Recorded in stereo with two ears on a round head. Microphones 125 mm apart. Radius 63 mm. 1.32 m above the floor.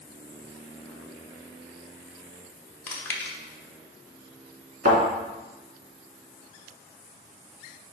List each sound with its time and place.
2.9 s chewing: 15° left (ahead or behind), 1.0 m
4.8 s a thud: 60° right (ahead or behind), 2.5 m